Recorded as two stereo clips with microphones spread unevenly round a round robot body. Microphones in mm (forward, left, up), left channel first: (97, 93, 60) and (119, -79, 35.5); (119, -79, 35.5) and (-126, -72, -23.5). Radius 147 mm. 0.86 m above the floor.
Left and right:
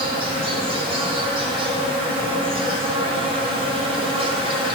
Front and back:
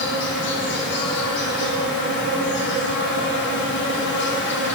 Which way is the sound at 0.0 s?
45° right.